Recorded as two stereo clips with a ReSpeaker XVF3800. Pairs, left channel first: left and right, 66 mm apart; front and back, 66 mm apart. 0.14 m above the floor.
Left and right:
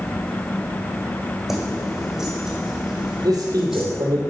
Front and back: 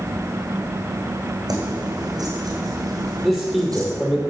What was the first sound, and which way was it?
Keys jangling, 175° right.